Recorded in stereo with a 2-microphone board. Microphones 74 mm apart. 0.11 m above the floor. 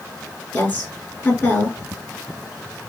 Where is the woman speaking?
25° left (ahead or behind), 1.2 m.